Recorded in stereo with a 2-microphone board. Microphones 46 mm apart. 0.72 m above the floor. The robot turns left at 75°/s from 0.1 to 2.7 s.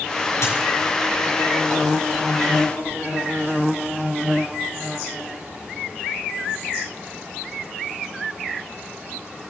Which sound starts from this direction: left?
A dropped coin, at 0.4 s.